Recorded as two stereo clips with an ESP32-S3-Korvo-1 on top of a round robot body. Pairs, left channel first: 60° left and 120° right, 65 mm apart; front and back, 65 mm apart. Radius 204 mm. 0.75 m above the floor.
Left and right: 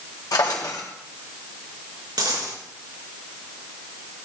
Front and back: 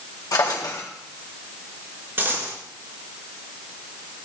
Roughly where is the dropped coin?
Behind right.